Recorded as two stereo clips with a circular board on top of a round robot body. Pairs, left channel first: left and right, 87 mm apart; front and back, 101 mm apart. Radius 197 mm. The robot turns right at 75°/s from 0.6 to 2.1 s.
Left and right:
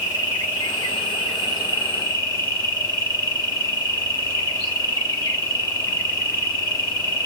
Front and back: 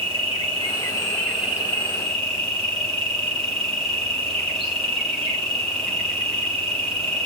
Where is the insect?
30° left, 3.5 m; by 7.3 s 140° left, 3.5 m.